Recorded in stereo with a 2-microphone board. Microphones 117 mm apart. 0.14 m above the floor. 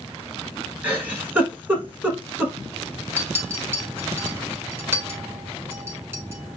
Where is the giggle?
10° right (ahead or behind), 0.8 m.